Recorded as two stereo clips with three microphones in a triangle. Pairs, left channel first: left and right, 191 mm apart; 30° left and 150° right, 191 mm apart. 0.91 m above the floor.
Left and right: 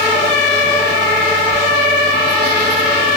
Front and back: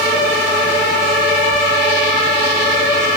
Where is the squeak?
85° right, 5 m.